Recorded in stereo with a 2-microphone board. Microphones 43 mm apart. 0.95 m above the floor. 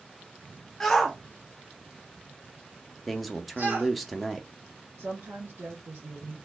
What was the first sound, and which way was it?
A shout, 10° left (ahead or behind).